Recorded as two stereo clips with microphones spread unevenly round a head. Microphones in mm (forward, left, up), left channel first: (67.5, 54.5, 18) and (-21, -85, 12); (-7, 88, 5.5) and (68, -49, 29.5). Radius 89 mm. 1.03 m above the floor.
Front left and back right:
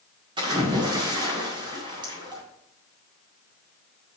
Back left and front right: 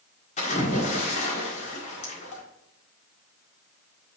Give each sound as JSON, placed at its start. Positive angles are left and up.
{"t": 0.4, "sound": "a splash", "azimuth_deg": 170, "distance_m": 1.9}